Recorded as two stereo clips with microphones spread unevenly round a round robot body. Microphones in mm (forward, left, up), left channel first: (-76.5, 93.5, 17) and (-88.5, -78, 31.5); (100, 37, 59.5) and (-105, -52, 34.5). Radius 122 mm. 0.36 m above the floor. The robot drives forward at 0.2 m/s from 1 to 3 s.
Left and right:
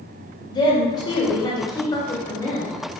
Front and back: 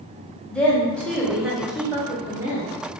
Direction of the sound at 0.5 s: 115° left.